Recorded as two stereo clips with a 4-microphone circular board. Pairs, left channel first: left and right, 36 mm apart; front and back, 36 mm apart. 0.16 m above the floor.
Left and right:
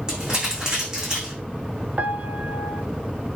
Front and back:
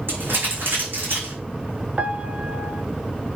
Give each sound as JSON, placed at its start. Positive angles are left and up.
{"t": 0.1, "sound": "crumpling", "azimuth_deg": -155, "distance_m": 7.0}
{"t": 2.0, "sound": "a piano", "azimuth_deg": -130, "distance_m": 0.5}